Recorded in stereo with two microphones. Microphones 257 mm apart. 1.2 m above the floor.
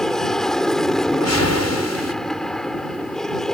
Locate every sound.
0.0 s an aircraft: centre (ahead or behind)
1.1 s a whoosh: 80° left